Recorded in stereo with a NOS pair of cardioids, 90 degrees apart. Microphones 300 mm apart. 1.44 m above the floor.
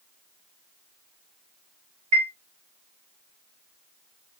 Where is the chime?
65° right, 2.0 m.